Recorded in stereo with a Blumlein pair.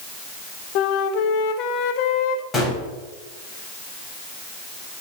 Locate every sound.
0.8 s a flute: 40° left, 0.9 m
2.5 s a gunshot: 15° left, 3.5 m